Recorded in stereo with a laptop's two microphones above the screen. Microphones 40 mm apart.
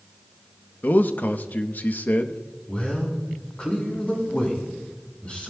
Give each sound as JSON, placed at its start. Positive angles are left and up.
{"t": 0.8, "sound": "a man speaking", "side_deg": 50, "distance_m": 0.9}
{"t": 2.7, "sound": "a man speaking", "side_deg": 30, "distance_m": 7.5}